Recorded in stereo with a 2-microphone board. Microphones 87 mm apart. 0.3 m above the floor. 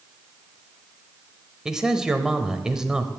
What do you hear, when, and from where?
1.6 s a man speaking: 5° right (ahead or behind), 1.0 m